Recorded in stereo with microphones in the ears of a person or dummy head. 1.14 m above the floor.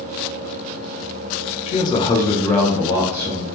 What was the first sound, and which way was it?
A man speaking, 30° left (ahead or behind).